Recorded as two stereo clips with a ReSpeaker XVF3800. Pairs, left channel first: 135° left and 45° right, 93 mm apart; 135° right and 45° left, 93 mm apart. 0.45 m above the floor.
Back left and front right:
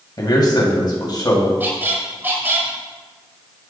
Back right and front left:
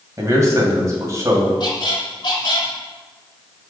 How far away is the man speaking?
About 2 m.